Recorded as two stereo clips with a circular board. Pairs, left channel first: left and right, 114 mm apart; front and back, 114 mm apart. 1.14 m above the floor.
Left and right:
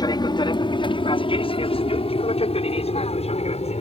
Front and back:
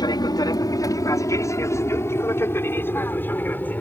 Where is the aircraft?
45° left; by 3.8 s 75° left.